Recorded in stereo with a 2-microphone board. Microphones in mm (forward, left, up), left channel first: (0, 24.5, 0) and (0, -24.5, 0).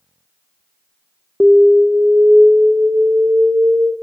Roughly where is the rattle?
I don't hear a rattle.